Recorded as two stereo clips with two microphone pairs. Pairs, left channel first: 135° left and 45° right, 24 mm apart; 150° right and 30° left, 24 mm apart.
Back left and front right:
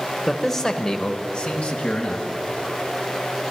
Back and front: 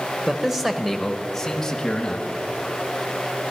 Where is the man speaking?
60° left, 0.9 m; by 2.3 s 145° left, 1.6 m.